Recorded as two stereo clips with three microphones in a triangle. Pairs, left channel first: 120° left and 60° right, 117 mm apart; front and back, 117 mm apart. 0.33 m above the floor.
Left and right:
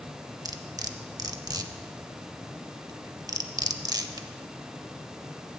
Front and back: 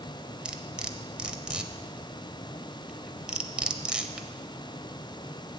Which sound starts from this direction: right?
Cutlery clinking, at 0.5 s.